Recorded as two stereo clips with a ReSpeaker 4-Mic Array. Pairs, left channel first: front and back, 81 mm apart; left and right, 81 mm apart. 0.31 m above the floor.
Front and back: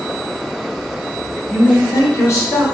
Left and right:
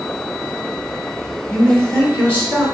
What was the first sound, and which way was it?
A man speaking, 30° left.